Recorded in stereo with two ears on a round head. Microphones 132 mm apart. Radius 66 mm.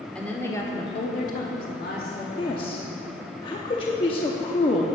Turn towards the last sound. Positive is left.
turn(degrees=35)  # may be behind; listen again after turning